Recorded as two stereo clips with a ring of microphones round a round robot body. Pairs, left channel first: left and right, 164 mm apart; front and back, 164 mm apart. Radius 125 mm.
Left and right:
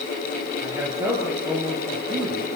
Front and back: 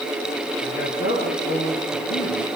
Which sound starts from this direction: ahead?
A man speaking, at 0.6 s.